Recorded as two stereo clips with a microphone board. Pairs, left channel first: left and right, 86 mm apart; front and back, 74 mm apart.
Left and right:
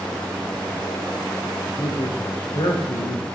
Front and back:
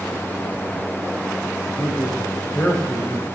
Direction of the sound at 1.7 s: 80° left.